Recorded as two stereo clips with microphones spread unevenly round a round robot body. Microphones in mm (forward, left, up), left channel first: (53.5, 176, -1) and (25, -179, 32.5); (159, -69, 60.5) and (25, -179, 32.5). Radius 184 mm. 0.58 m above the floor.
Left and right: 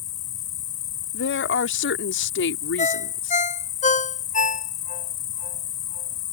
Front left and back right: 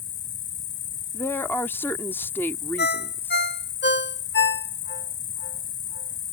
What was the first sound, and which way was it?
An insect, 40° left.